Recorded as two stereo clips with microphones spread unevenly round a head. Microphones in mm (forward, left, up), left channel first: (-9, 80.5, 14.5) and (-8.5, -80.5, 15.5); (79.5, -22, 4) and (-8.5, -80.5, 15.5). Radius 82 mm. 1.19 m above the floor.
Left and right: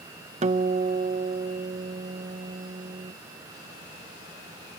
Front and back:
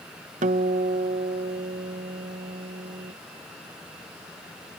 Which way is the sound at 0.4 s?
140° right.